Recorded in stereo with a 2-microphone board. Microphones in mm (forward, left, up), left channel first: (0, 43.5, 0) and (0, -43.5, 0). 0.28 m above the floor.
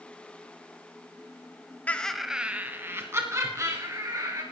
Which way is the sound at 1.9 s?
20° left (ahead or behind).